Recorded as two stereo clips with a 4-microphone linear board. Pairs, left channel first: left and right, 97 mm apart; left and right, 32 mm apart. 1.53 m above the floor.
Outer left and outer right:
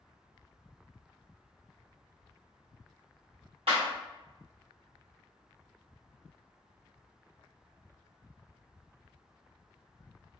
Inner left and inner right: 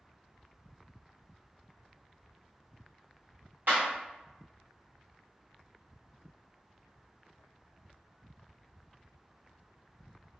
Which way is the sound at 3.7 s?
75° right (ahead or behind).